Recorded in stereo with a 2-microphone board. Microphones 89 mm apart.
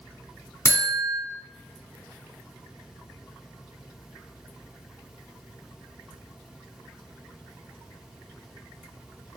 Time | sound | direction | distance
0.7 | a buzzer | 30° left (ahead or behind) | 1.8 m